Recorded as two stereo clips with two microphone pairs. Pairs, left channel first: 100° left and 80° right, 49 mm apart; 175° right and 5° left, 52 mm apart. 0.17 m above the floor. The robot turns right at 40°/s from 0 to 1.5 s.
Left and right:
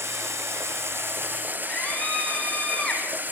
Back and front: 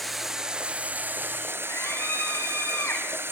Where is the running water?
90° right, 0.8 m; by 3.3 s 30° right, 0.8 m.